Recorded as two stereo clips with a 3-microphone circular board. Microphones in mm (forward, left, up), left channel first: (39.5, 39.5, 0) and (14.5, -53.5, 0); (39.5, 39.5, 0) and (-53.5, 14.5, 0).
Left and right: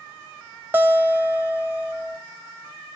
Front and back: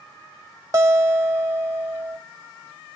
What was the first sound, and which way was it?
A guitar, 155° right.